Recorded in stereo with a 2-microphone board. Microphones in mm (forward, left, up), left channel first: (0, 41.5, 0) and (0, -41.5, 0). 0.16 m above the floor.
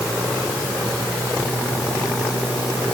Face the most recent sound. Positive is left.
No sound to turn to.